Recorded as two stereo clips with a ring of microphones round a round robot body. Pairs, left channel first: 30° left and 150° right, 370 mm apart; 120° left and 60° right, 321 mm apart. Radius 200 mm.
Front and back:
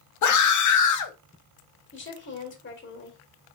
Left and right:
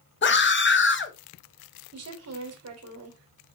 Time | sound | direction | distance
0.2 | a scream | 65° left | 1.0 m
1.9 | a woman speaking | 25° right | 2.0 m